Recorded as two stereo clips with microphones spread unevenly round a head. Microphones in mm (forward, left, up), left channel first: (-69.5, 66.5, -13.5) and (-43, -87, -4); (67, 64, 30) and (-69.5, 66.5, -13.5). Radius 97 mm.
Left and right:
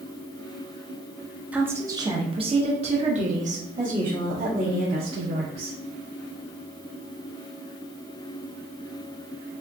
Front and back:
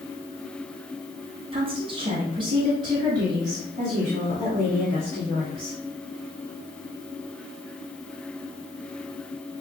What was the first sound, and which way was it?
A woman speaking, 165° right.